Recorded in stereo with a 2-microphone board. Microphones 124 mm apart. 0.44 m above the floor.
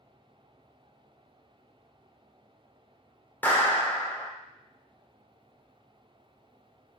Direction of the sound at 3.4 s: 15° left (ahead or behind).